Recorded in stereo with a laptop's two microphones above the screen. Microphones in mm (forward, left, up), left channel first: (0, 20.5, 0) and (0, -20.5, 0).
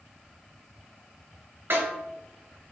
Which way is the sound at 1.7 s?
60° right (ahead or behind).